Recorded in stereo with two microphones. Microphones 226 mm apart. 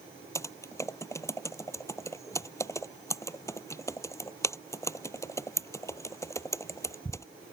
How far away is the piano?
No piano in this recording.